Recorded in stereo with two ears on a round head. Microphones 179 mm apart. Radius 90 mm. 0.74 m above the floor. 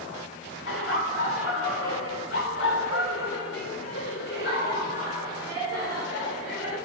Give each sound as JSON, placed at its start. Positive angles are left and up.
{"t": 0.7, "sound": "laughter", "side_deg": 65, "distance_m": 2.0}